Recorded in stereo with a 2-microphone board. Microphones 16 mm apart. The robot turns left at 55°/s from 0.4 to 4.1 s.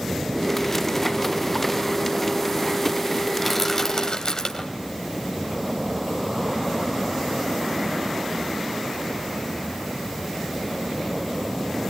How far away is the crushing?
About 3 m.